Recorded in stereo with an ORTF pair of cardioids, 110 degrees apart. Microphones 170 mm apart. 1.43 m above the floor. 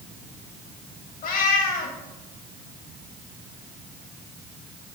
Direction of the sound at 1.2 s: 55° left.